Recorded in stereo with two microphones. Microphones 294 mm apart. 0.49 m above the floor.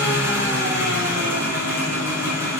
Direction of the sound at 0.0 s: 10° right (ahead or behind).